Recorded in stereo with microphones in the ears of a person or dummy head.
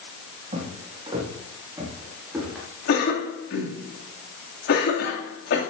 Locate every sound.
0.5 s footsteps: 25° right (ahead or behind), 5 m; by 2.7 s centre (ahead or behind), 6 m
2.9 s a cough: 75° left (ahead or behind), 2.5 m